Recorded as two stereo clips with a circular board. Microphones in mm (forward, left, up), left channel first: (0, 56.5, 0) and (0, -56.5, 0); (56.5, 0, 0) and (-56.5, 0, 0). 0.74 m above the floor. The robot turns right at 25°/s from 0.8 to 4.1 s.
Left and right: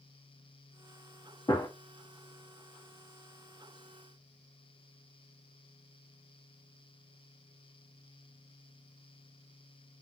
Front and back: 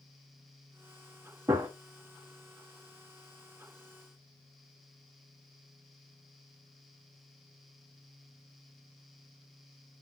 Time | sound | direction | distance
1.5 | a gunshot | 125° left | 0.9 m